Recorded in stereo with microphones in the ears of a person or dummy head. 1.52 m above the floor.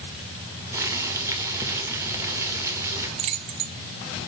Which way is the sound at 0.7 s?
15° right (ahead or behind).